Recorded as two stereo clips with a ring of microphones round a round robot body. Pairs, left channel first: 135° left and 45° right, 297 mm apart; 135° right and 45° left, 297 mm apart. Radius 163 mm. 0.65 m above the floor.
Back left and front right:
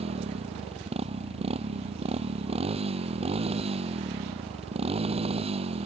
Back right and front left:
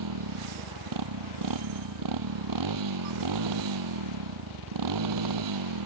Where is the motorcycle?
25° left.